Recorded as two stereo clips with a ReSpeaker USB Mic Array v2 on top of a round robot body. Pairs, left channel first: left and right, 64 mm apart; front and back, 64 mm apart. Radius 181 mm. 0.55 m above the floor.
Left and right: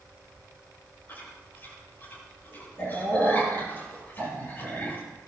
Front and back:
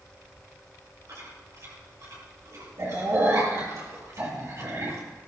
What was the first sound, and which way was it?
Chewing, 145° left.